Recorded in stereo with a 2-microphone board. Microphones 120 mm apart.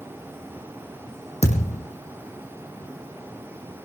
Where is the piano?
I don't hear a piano.